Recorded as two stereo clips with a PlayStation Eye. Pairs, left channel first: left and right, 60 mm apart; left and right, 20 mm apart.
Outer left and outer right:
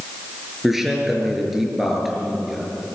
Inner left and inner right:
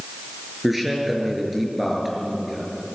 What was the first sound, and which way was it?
A man speaking, 5° right (ahead or behind).